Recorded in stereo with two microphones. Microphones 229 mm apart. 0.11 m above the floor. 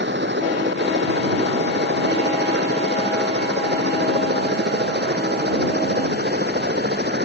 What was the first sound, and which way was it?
A helicopter, 50° right (ahead or behind).